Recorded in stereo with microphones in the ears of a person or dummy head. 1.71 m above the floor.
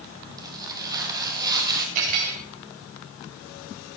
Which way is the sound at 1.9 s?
45° right (ahead or behind).